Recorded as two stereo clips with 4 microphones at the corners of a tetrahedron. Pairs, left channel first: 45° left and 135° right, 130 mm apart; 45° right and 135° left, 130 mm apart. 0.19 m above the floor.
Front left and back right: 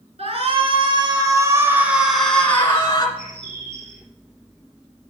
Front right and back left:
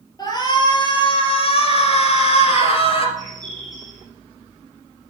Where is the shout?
105° right, 2.5 m; by 3.1 s 15° right, 2 m.